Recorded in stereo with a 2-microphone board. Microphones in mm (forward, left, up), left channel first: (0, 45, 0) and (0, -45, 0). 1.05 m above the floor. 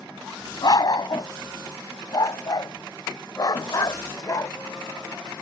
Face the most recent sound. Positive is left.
turn(degrees=45)  # may be behind; listen again after turning